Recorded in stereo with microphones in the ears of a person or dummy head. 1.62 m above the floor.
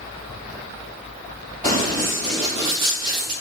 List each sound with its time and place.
1.6 s running footsteps: 30° right (ahead or behind), 1.8 m; by 3.3 s 50° right (ahead or behind), 2.5 m